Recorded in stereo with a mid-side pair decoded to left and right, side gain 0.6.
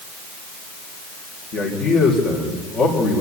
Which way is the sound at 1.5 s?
45° left.